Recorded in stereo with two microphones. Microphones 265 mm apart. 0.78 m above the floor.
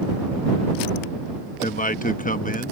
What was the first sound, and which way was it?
A man speaking, 30° left (ahead or behind).